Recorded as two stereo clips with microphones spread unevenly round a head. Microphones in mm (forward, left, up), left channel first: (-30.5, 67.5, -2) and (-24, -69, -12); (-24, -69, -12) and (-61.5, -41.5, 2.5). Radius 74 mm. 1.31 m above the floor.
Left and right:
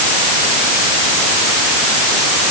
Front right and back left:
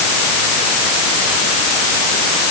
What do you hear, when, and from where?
Only background noise.